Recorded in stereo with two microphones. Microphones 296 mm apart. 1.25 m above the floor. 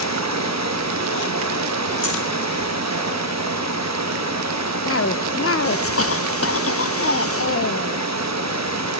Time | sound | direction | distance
0.0 | running water | 70° right (ahead or behind) | 1.0 m
2.0 | breathing | 45° left (ahead or behind) | 8 m
4.8 | a cough | 55° left (ahead or behind) | 0.6 m